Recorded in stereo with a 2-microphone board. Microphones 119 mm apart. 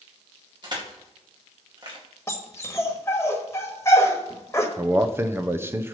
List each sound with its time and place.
0.6 s crushing: 40° right (ahead or behind), 2.5 m
2.3 s a dog barking: 25° left (ahead or behind), 1.3 m
4.8 s a man speaking: 20° right (ahead or behind), 0.8 m